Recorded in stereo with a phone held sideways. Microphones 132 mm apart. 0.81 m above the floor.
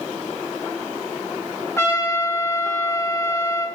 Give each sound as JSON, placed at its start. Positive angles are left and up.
{"t": 1.8, "sound": "a trumpet", "side_deg": 20, "distance_m": 0.7}